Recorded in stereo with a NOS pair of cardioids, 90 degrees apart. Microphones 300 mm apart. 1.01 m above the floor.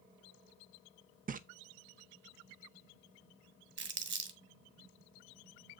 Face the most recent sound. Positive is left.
turn(degrees=-40)